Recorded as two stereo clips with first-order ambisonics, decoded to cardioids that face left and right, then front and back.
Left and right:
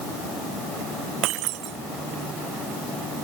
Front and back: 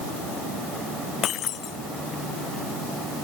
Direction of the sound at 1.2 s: 55° right.